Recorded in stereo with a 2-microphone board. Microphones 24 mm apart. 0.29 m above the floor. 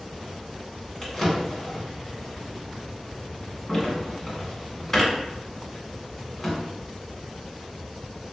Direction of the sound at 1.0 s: 10° left (ahead or behind).